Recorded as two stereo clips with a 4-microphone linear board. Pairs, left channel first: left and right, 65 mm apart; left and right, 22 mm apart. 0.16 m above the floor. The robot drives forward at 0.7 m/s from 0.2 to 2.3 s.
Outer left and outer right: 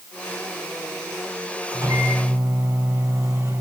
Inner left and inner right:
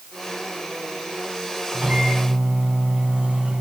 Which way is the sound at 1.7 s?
70° right (ahead or behind).